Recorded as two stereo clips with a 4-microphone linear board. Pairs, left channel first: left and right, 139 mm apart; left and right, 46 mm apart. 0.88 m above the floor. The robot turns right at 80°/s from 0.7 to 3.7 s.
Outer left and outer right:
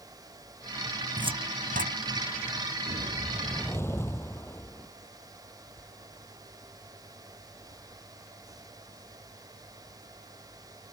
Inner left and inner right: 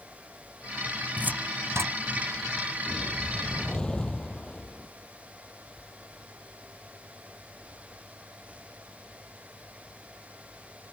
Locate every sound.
1.2 s a cupboard door: 30° right (ahead or behind); by 2.0 s 85° right
2.9 s a whoosh: 50° right; by 4.9 s 15° left